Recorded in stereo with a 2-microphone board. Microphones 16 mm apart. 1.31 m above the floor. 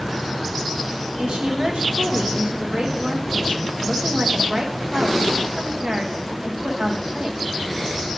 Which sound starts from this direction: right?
A woman speaking, at 1.2 s.